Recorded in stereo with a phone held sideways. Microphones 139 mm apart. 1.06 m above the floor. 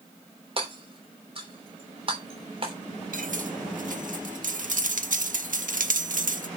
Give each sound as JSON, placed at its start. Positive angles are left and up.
{"t": 0.6, "sound": "hammering", "side_deg": -40, "distance_m": 3.0}
{"t": 3.1, "sound": "cutlery clinking", "side_deg": -75, "distance_m": 1.2}